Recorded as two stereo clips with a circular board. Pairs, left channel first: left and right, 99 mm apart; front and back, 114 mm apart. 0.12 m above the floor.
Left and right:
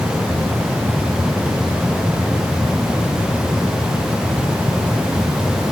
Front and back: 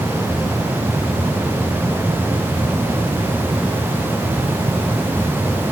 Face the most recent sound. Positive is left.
No sound to turn to.